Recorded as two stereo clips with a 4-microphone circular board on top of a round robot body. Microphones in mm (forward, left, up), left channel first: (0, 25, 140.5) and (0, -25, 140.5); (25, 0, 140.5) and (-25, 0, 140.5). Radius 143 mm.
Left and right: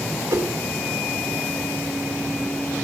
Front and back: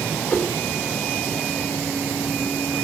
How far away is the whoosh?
About 1.3 m.